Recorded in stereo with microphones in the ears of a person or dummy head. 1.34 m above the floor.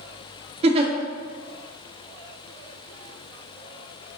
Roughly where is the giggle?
Right.